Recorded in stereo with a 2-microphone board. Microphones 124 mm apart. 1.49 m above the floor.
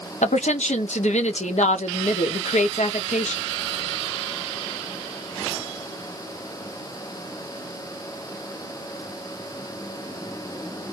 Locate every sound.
0.2 s a woman speaking: 85° left, 1.0 m